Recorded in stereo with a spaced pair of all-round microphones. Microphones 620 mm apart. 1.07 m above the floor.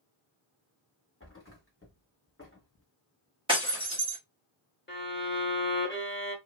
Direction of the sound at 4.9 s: 20° left (ahead or behind).